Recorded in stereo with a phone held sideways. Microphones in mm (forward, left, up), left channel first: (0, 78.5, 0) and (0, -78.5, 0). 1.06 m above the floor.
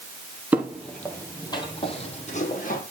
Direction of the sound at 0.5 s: 10° right (ahead or behind).